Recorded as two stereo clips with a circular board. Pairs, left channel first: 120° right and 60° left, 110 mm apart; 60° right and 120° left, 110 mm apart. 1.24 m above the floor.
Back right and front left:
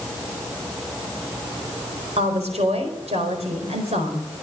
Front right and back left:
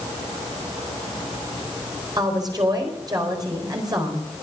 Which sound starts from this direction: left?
A woman speaking, at 2.2 s.